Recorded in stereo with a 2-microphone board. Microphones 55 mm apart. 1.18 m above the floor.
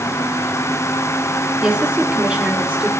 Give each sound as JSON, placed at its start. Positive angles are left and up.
{"t": 1.6, "sound": "a woman speaking", "side_deg": -20, "distance_m": 2.0}